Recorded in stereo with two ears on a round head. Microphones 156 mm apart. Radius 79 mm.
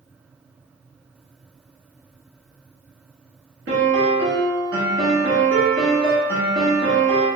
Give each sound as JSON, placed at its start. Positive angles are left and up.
{"t": 3.7, "sound": "a piano", "side_deg": -75, "distance_m": 1.7}